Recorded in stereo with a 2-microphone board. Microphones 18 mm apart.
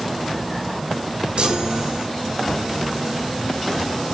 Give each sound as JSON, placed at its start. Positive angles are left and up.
{"t": 1.4, "sound": "a chime", "side_deg": -55, "distance_m": 0.8}